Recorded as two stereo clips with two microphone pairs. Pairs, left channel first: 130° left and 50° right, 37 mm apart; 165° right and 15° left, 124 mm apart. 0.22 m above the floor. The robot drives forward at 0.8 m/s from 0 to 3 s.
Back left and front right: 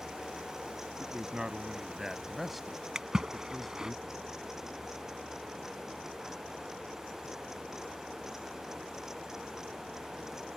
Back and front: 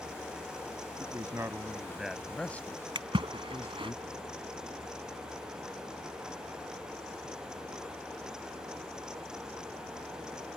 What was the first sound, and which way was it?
A man speaking, 15° right.